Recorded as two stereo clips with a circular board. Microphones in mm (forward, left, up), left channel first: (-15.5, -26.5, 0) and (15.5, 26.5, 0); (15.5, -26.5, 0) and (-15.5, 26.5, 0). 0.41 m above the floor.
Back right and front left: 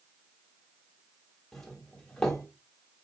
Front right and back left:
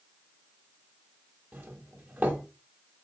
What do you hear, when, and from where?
1.5 s a doorbell: 160° left, 1.4 m